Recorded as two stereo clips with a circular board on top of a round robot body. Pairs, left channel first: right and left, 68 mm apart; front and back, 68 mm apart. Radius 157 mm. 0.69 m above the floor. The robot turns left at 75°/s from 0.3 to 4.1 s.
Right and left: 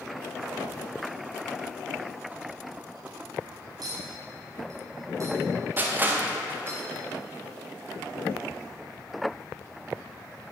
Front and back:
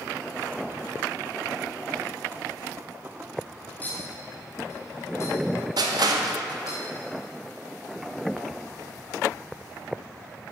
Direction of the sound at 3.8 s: 70° left.